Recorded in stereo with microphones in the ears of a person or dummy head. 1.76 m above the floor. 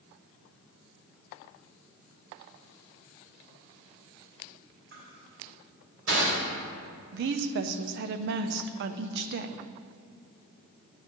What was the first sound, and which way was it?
Crushing, 65° right (ahead or behind).